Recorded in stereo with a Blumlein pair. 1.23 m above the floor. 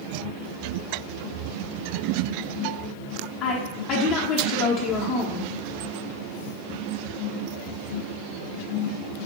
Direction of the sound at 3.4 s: 35° left.